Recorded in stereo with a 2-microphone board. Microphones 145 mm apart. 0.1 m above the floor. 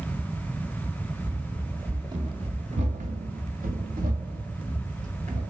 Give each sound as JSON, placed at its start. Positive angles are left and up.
{"t": 1.2, "sound": "running footsteps", "side_deg": -10, "distance_m": 1.2}